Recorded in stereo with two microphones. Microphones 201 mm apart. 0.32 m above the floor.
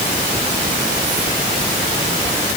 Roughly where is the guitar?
No guitar in this recording.